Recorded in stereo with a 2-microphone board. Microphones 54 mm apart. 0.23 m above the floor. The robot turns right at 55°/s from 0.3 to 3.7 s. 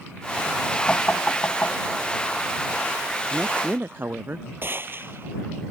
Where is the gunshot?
40° right (ahead or behind).